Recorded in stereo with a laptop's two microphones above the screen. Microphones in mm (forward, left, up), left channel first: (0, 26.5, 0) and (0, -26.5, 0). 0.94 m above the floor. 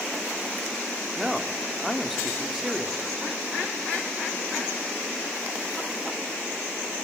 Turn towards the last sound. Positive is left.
turn(degrees=-5)  # may be behind; listen again after turning